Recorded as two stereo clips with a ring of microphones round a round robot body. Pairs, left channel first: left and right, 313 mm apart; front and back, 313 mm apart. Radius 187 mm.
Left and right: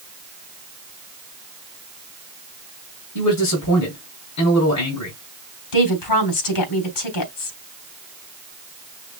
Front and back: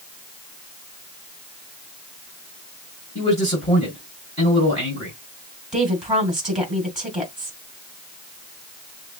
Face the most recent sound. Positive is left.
turn(degrees=90)